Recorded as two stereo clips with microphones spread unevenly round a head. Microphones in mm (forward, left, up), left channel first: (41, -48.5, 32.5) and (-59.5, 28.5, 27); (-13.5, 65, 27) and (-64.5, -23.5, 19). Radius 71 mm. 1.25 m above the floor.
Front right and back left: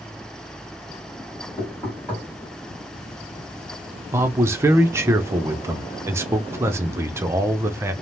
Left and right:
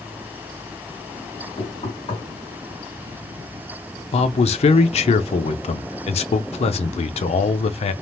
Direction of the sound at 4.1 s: 75° left.